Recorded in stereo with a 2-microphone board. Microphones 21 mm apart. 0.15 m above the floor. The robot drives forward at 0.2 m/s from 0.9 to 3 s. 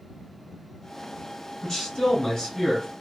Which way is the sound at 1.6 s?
25° left (ahead or behind).